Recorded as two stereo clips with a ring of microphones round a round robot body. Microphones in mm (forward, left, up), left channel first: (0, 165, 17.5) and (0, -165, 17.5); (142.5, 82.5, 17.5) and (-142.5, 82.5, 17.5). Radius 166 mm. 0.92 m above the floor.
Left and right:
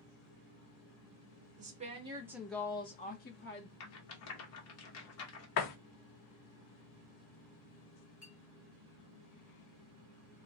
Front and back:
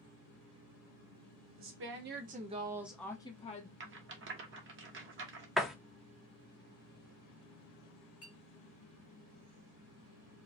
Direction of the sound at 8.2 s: 35° left.